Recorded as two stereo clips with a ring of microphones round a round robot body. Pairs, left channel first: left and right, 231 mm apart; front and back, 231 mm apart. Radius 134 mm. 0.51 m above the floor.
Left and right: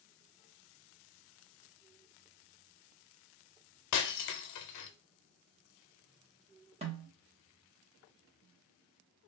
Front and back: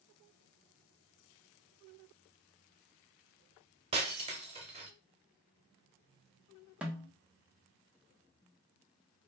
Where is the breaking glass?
110° left, 0.6 m.